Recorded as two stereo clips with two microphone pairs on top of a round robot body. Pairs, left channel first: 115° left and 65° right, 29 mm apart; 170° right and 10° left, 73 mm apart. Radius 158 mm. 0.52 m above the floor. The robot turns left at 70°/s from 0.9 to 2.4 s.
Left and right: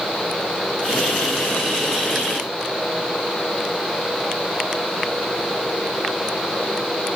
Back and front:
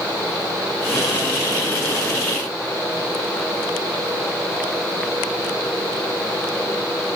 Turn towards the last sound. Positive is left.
No sound to turn to.